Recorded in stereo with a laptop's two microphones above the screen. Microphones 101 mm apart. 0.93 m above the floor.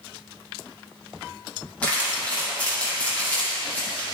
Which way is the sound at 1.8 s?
15° left (ahead or behind).